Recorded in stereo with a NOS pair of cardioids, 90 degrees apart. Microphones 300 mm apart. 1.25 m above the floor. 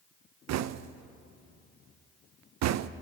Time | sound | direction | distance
0.5 | knocking | 65° right | 0.6 m